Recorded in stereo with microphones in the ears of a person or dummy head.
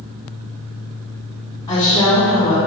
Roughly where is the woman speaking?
Left.